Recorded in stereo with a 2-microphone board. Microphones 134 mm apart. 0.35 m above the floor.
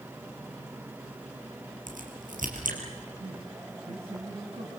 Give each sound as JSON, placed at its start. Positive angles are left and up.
{"t": 1.9, "sound": "a crack", "side_deg": -85, "distance_m": 4.0}
{"t": 3.2, "sound": "a man speaking", "side_deg": -50, "distance_m": 3.5}